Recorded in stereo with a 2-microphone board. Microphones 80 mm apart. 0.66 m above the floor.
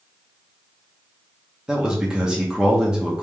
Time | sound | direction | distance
1.7 | a man speaking | 10° right (ahead or behind) | 1.1 m